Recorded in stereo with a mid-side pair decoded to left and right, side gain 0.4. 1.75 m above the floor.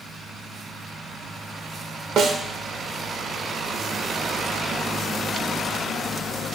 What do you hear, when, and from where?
2.2 s a snare drum: 70° right, 0.9 m